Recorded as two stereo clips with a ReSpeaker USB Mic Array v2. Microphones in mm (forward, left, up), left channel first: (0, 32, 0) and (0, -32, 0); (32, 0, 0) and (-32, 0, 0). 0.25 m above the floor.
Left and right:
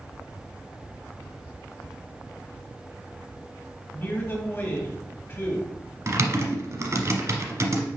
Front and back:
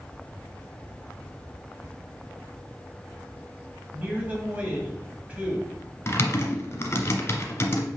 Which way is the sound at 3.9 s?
125° left.